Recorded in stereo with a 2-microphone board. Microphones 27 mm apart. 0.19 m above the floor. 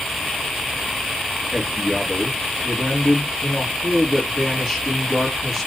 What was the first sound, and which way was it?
A man speaking, centre (ahead or behind).